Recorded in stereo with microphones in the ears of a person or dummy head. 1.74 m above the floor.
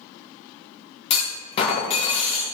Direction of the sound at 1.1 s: 30° left (ahead or behind).